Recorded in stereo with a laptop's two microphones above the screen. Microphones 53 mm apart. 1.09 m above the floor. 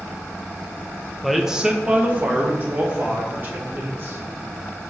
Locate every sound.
1.2 s a man speaking: centre (ahead or behind), 0.8 m; by 4.2 s 45° right (ahead or behind), 3 m